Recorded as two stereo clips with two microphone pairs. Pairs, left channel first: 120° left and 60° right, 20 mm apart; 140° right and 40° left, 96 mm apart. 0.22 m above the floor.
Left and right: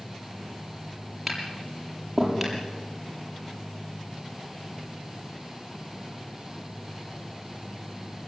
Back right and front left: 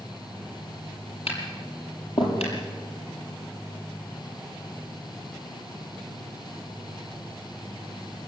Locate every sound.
1.3 s tapping: 145° right, 8 m